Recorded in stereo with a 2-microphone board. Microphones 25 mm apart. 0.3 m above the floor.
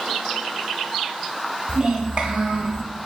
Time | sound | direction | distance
1.7 | a child speaking | 45° right (ahead or behind) | 0.9 m